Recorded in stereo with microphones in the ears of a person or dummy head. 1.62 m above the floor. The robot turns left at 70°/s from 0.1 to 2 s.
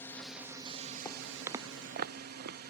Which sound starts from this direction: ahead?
A drone, at 0.0 s.